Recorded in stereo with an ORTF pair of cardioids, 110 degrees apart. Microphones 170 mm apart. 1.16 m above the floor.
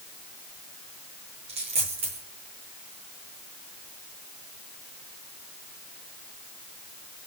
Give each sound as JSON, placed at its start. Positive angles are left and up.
{"t": 1.5, "sound": "a dropped coin", "azimuth_deg": -40, "distance_m": 8.5}